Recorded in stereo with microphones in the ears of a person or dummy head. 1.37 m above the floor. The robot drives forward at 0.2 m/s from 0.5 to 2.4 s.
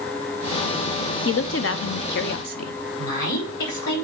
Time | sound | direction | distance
1.2 | a woman speaking | 55° left (ahead or behind) | 0.6 m
3.0 | a woman speaking | 70° left (ahead or behind) | 4.5 m